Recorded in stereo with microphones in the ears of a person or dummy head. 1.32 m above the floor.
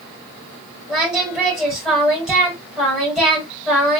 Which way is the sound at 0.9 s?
Centre (ahead or behind).